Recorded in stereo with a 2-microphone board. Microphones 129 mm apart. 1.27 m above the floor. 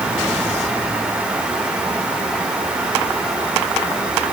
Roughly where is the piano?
I don't hear a piano.